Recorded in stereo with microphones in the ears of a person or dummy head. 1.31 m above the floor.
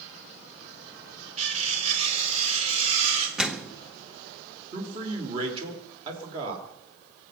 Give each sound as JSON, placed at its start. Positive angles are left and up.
{"t": 1.4, "sound": "cutlery clinking", "side_deg": -40, "distance_m": 2.5}
{"t": 3.4, "sound": "a microwave", "side_deg": -5, "distance_m": 0.8}
{"t": 4.7, "sound": "a man speaking", "side_deg": -30, "distance_m": 3.5}